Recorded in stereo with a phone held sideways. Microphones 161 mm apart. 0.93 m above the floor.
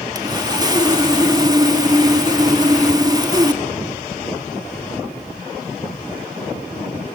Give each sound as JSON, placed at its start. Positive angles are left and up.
{"t": 0.1, "sound": "sawing", "side_deg": -25, "distance_m": 1.4}